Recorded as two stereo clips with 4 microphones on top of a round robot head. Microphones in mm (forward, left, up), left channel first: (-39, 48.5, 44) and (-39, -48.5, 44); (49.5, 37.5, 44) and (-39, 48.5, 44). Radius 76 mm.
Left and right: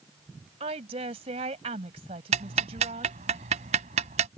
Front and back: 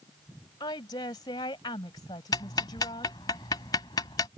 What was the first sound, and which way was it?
A woman speaking, 60° right.